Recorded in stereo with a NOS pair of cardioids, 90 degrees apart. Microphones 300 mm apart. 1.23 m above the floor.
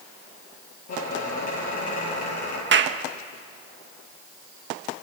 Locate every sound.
0.9 s a squeak: 55° left, 10 m
2.7 s a clap: 40° right, 1.4 m